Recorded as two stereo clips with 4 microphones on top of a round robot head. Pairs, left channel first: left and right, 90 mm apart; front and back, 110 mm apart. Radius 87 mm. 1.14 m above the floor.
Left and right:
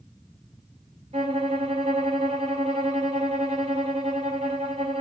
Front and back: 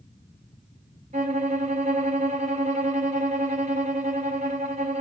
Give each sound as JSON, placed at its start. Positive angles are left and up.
{"t": 1.1, "sound": "a violin", "azimuth_deg": -135, "distance_m": 0.8}